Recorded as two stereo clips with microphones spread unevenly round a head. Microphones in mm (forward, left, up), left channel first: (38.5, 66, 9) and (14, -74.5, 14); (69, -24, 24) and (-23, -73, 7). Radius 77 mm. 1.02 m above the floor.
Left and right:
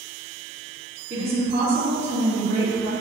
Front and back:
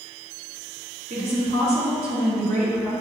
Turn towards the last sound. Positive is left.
turn(degrees=-150)